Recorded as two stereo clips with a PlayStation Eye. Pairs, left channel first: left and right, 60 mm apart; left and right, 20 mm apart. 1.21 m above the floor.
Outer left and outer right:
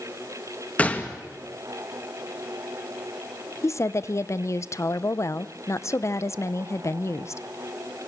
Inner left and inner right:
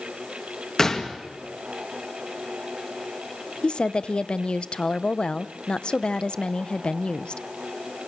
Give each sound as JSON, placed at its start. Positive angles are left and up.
{"t": 0.8, "sound": "a gunshot", "side_deg": 25, "distance_m": 2.0}
{"t": 3.6, "sound": "a woman speaking", "side_deg": 55, "distance_m": 0.8}